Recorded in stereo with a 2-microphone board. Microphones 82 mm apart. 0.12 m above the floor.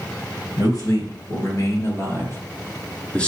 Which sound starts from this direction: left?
A man speaking, at 0.6 s.